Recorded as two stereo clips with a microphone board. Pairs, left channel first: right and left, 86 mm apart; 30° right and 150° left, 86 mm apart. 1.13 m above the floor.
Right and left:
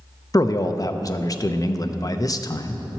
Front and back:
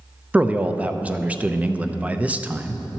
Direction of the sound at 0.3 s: 135° right.